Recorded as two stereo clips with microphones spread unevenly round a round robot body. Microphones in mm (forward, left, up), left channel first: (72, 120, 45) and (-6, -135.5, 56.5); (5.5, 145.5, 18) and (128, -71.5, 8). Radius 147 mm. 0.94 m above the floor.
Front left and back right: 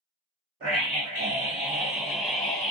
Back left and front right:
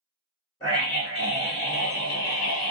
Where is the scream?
165° right, 1.5 m; by 2.7 s 140° left, 0.8 m.